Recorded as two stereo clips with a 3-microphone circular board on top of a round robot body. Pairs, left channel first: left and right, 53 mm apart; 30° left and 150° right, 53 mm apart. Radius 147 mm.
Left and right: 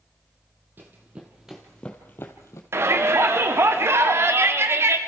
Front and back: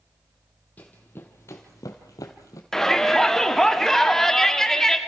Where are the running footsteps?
30° right, 1.5 m; by 2.6 s 55° left, 1.3 m.